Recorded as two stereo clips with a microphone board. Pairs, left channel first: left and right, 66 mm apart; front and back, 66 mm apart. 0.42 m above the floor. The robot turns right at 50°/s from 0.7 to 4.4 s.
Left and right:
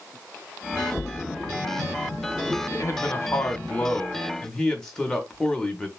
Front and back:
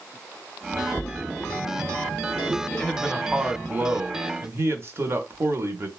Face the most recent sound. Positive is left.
turn(degrees=165)